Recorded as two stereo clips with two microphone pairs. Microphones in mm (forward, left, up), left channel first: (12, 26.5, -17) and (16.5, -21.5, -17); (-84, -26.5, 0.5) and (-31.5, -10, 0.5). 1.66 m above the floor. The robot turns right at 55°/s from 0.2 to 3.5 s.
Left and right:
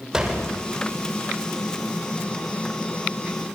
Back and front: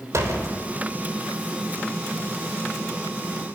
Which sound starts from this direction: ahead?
A door slam, at 0.1 s.